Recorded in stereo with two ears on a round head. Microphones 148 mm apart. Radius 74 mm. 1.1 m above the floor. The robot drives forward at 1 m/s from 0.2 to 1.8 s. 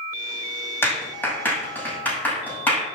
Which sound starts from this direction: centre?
A clap, at 0.8 s.